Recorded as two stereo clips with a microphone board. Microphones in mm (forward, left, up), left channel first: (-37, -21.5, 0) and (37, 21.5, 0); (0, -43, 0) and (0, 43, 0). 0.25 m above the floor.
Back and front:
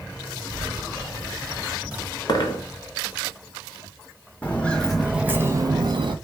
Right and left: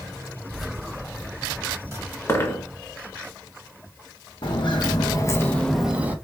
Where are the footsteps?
80° right, 0.8 m; by 6.2 s 20° left, 0.6 m.